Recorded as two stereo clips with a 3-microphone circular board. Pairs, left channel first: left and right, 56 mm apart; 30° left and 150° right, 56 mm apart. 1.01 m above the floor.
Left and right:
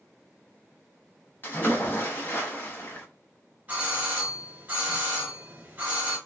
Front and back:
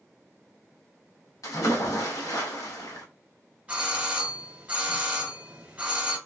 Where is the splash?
40° left, 1.0 m.